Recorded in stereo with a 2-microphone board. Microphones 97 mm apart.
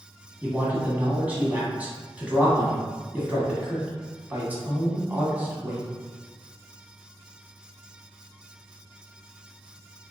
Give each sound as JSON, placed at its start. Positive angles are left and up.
{"t": 0.4, "sound": "a man speaking", "side_deg": -15, "distance_m": 1.1}